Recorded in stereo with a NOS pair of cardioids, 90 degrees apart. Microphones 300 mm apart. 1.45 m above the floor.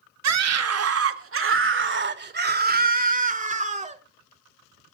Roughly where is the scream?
Ahead right.